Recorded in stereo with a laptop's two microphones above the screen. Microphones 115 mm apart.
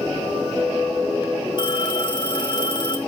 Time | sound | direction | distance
1.6 | a phone ringing | 45° left (ahead or behind) | 4 m